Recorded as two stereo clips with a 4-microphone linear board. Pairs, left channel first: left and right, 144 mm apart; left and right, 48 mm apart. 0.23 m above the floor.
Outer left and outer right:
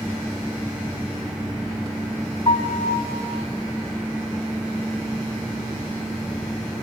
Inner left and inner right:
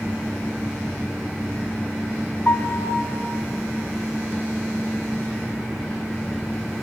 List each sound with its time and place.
2.5 s a piano: 40° left (ahead or behind), 1.2 m